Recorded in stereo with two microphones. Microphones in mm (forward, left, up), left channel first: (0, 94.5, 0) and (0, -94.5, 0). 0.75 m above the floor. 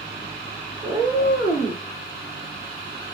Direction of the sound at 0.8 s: 5° right (ahead or behind).